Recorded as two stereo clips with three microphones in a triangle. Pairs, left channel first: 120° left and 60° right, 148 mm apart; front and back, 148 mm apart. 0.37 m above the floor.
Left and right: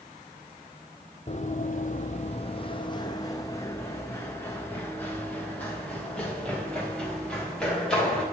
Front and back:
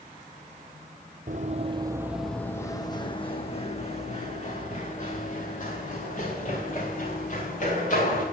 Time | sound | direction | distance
1.3 | running footsteps | 160° left | 0.6 m